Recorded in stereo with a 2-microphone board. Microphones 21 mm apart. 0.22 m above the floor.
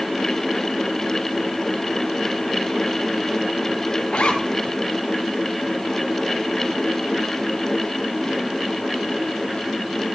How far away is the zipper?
About 2 m.